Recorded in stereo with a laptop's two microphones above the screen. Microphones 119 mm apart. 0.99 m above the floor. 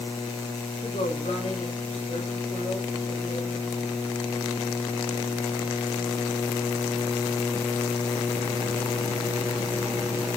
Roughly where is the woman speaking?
Left.